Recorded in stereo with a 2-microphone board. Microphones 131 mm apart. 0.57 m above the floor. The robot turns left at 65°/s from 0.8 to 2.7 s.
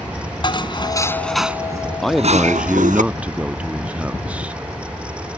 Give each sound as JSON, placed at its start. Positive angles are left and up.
{"t": 0.4, "sound": "dishes clattering", "azimuth_deg": 35}
{"t": 2.0, "sound": "a man speaking", "side_deg": 5}